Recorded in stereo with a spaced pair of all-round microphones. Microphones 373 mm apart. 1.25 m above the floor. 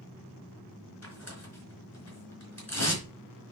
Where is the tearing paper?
45° left (ahead or behind), 4 m.